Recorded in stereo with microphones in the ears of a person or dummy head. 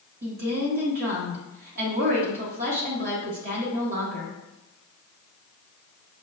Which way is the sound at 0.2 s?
40° right (ahead or behind).